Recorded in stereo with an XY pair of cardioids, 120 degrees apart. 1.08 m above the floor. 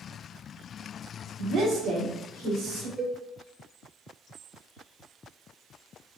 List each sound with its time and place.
1.4 s a woman speaking: 60° right, 1.3 m; by 2.9 s 80° right, 3 m
3.0 s a cowbell: 40° right, 1.0 m